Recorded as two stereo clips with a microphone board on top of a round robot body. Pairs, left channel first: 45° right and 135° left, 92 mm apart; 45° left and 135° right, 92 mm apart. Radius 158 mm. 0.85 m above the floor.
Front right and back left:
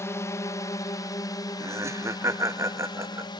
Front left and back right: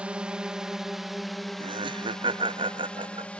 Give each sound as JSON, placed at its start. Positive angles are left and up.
{"t": 0.0, "sound": "a drone", "azimuth_deg": -65}
{"t": 1.6, "sound": "laughter", "azimuth_deg": -165}